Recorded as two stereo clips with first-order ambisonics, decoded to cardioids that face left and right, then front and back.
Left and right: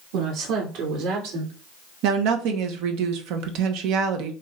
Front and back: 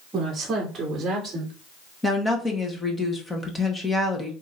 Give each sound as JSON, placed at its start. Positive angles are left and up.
{"t": 0.1, "sound": "a woman speaking", "azimuth_deg": -115, "distance_m": 2.5}
{"t": 2.0, "sound": "a woman speaking", "azimuth_deg": -80, "distance_m": 1.1}